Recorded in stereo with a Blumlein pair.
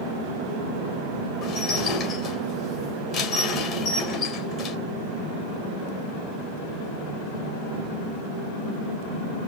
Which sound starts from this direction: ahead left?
Dishes clattering, at 1.4 s.